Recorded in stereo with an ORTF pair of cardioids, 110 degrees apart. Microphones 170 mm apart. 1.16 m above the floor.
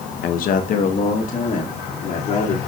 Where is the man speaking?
60° left, 0.7 m; by 2.6 s 45° left, 2.5 m.